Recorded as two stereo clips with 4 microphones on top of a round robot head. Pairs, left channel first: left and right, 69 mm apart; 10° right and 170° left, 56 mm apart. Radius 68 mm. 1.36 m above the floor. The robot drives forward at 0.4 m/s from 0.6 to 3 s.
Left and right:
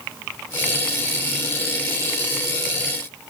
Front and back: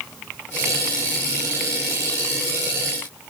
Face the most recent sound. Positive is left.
No sound to turn to.